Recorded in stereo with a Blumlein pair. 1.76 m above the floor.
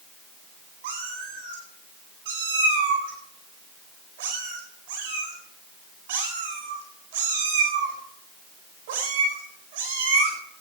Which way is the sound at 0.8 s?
50° right.